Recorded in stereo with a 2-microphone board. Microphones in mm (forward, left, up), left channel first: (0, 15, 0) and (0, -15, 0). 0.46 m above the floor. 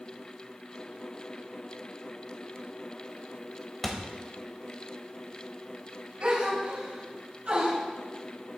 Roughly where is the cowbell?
I don't hear a cowbell.